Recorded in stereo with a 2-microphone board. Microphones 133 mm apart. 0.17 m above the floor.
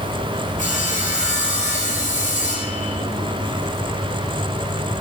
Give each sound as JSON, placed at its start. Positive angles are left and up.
{"t": 0.6, "sound": "sawing", "side_deg": 70, "distance_m": 3.5}